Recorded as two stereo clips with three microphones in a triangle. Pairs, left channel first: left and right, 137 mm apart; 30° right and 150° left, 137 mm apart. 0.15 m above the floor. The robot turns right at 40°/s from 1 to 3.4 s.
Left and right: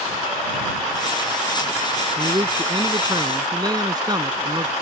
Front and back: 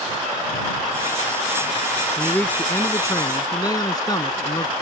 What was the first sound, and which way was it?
A man speaking, 110° right.